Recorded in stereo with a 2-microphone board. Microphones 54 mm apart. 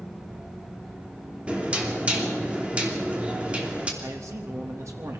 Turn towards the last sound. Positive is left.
turn(degrees=-65)  # may be behind; listen again after turning